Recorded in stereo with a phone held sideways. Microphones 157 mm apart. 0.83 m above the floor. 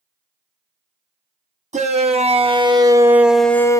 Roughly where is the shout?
Right.